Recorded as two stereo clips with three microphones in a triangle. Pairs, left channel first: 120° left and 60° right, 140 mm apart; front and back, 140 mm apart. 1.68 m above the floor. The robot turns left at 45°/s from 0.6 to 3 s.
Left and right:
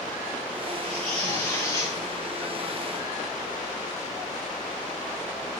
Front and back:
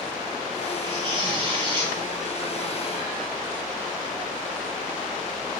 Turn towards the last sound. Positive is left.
turn(degrees=105)